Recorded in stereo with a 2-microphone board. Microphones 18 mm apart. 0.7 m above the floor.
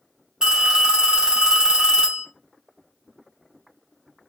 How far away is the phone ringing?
About 1.4 m.